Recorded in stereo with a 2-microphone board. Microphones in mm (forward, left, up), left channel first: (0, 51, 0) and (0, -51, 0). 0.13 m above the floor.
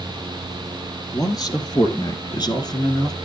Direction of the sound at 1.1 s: 40° left (ahead or behind).